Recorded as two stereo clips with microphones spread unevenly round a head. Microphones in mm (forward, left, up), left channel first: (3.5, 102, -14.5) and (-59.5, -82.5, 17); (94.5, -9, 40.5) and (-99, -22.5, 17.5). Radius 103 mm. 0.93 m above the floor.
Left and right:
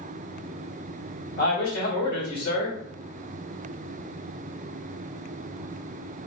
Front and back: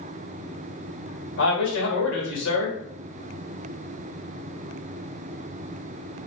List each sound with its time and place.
1.4 s a man speaking: 35° left, 1.8 m